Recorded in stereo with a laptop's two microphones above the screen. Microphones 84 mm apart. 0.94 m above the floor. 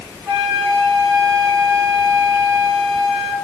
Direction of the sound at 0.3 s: 5° right (ahead or behind).